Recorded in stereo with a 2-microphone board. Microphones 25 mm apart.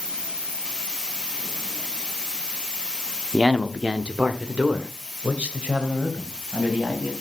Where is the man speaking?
20° right (ahead or behind), 0.7 m; by 7.1 s 75° right (ahead or behind), 3 m.